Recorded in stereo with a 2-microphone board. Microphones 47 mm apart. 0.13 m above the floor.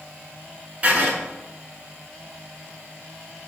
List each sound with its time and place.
0.8 s writing: 30° right (ahead or behind), 0.8 m